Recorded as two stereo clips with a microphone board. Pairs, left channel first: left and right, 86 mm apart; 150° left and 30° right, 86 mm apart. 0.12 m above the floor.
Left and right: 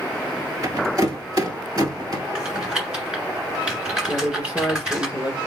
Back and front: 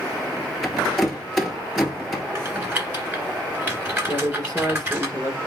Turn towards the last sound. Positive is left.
turn(degrees=-30)